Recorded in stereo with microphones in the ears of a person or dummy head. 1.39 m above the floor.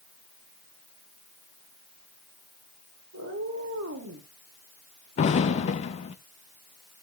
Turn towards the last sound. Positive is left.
turn(degrees=35)  # may be behind; listen again after turning